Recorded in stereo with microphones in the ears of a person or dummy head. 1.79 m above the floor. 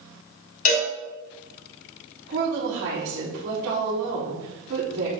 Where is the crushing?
I don't hear crushing.